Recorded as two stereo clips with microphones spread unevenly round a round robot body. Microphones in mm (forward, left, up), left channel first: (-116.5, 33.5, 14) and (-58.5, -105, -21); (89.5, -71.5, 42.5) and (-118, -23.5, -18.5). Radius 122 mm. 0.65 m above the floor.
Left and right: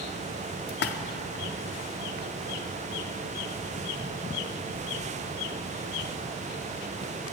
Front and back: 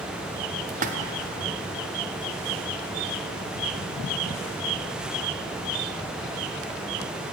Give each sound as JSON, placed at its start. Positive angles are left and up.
{"t": 0.7, "sound": "a splash", "azimuth_deg": 115, "distance_m": 0.6}